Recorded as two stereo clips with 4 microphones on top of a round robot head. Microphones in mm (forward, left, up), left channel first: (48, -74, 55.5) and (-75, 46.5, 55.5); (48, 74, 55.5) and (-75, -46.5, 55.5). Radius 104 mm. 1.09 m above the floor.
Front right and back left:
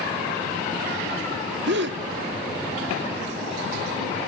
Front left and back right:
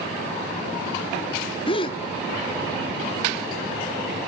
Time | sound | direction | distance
1.7 | a gasp | 105° left | 1.3 m